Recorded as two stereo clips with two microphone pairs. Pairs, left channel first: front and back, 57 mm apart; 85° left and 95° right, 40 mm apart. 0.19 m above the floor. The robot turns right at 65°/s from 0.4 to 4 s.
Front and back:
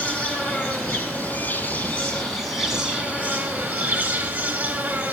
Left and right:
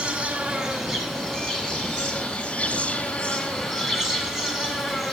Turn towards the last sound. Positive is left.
turn(degrees=-170)